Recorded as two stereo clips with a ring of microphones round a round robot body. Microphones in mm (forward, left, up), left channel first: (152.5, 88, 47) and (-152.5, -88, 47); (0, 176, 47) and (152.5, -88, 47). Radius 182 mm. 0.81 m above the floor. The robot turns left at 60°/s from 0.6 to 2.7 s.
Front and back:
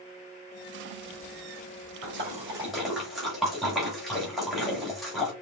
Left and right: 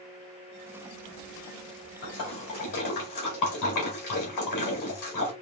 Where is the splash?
160° left, 1.9 m; by 5.3 s 120° left, 1.9 m.